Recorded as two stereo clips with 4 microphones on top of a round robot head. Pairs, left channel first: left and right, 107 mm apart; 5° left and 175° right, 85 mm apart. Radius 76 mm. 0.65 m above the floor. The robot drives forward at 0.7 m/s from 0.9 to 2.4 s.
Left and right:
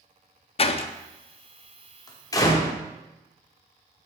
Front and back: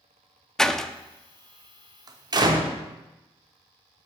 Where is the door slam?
90° left, 0.7 m; by 2.7 s 150° left, 1.3 m.